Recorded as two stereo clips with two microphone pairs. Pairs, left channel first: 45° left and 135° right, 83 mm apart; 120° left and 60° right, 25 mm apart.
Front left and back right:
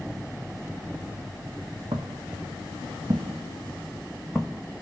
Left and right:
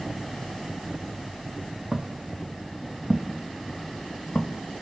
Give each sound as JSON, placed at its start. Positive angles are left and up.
{"t": 1.9, "sound": "footsteps", "azimuth_deg": -115, "distance_m": 1.1}